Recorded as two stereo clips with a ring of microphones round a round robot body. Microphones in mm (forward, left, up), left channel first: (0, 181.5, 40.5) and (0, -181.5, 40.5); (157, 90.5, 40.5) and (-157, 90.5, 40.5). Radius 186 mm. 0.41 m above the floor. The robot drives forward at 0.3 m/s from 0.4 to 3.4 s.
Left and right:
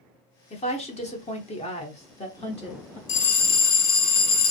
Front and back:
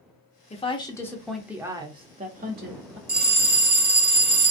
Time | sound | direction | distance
0.5 | a woman speaking | 40° left | 0.8 m
3.1 | a bell | 120° left | 0.7 m